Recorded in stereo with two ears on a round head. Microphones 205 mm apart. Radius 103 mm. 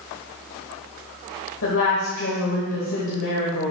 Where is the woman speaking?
60° left (ahead or behind), 1.5 m.